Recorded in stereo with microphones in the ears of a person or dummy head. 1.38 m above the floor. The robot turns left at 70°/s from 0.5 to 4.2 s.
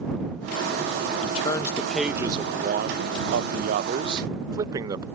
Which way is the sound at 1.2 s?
50° left.